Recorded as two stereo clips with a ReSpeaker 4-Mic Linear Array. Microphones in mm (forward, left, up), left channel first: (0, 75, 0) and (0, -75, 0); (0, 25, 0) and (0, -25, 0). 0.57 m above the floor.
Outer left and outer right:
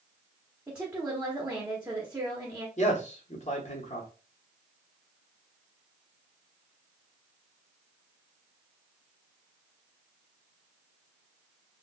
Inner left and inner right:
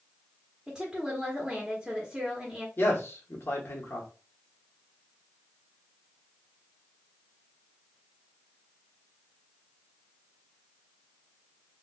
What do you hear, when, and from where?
0.7 s a woman speaking: 10° right (ahead or behind), 0.9 m
2.8 s a man speaking: 50° left (ahead or behind), 1.1 m